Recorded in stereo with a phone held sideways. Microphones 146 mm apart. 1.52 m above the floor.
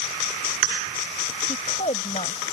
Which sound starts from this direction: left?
A woman speaking, at 1.5 s.